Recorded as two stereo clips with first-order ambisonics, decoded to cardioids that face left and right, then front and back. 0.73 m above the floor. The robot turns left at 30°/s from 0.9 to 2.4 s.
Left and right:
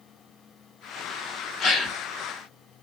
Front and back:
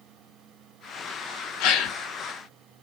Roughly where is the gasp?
Ahead left.